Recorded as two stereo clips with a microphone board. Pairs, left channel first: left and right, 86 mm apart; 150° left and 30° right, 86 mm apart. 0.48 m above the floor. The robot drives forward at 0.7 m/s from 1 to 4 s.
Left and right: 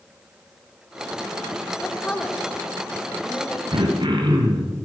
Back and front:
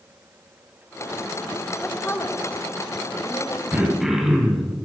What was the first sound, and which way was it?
A woman speaking, 95° left.